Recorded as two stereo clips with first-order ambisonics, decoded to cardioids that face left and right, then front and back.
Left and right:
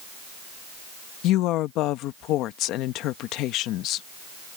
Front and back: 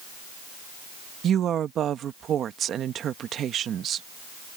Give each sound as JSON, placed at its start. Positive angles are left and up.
{"t": 1.2, "sound": "a woman speaking", "azimuth_deg": 125}